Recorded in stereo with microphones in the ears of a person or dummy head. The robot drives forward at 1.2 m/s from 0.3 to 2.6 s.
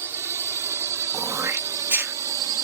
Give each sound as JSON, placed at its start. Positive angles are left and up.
{"t": 0.0, "sound": "a drone", "side_deg": -15}
{"t": 1.1, "sound": "throat clearing", "side_deg": -25}